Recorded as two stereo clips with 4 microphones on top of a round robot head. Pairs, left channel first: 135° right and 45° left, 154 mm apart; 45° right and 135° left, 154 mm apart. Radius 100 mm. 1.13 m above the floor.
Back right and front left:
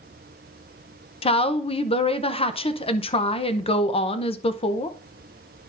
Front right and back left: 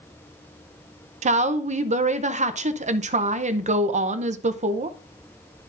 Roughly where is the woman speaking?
Behind.